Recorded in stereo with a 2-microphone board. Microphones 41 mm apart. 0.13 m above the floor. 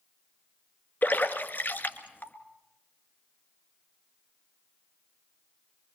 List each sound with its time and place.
1.0 s a splash: 45° left (ahead or behind), 1.5 m